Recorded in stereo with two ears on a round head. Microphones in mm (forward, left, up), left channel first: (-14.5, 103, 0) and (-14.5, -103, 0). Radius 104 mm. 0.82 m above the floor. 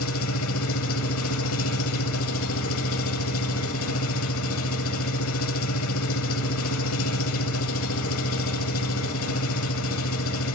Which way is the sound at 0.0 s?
65° left (ahead or behind).